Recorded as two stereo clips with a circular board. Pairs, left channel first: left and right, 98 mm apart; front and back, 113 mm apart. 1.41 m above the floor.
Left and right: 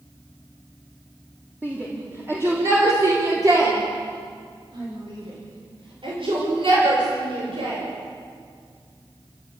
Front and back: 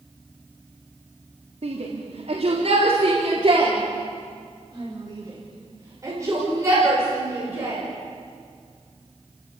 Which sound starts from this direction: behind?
A shout, at 1.6 s.